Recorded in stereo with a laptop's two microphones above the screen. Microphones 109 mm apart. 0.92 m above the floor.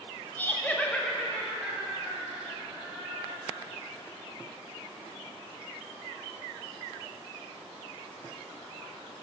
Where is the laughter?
15° left (ahead or behind), 0.8 m; by 3.6 s centre (ahead or behind), 4.5 m.